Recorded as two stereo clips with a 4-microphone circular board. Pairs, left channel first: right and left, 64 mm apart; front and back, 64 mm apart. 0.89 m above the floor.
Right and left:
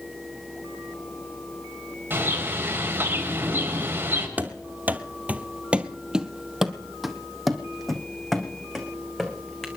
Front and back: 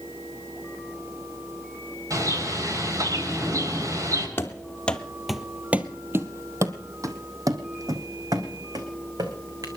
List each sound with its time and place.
2.1 s a bird: 150° left, 4 m
4.4 s running footsteps: 40° left, 1.1 m; by 9.7 s 175° right, 3 m